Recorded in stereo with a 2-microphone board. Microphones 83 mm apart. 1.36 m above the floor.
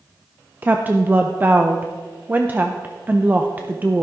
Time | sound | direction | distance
0.6 | a woman speaking | 25° right (ahead or behind) | 0.6 m